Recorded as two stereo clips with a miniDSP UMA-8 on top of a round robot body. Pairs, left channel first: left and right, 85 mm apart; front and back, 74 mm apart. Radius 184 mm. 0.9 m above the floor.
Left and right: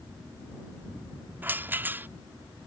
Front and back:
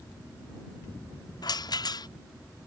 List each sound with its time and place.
1.4 s a rattle: 20° right